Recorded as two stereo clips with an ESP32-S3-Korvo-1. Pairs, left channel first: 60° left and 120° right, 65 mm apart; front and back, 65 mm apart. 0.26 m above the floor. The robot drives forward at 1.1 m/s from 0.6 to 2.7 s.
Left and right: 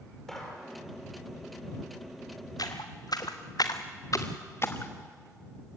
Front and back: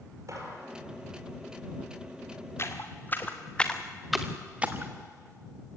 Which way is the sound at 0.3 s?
145° left.